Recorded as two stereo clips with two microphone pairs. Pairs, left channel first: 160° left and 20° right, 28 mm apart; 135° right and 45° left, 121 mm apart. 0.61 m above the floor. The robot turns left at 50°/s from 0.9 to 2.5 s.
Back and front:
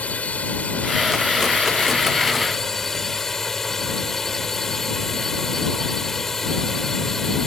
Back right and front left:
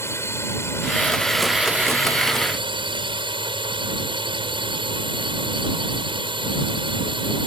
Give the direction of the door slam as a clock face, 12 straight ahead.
No door slam in this recording.